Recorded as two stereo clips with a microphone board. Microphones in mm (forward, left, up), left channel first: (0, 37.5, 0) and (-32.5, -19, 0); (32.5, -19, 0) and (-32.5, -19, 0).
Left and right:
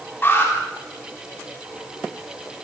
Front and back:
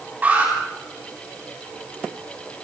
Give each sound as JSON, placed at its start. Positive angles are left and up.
{"t": 0.2, "sound": "an alarm", "azimuth_deg": 115, "distance_m": 9.5}